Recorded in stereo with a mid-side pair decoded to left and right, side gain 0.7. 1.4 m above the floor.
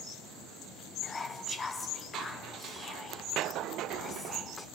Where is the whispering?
20° left, 0.6 m.